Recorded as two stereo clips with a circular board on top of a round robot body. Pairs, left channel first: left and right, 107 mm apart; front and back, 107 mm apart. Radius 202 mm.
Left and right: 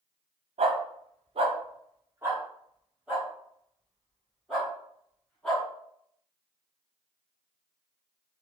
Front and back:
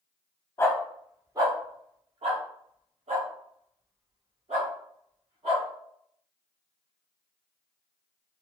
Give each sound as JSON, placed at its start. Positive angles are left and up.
{"t": 0.6, "sound": "a dog barking", "azimuth_deg": -65, "distance_m": 0.6}